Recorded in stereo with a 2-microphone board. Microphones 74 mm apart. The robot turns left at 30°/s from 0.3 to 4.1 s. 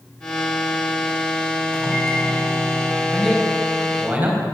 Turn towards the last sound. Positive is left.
turn(degrees=-25)  # may be behind; listen again after turning